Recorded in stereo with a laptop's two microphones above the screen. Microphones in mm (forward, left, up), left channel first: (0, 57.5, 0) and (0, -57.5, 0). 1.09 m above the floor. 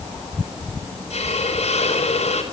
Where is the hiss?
65° left (ahead or behind), 4.5 m.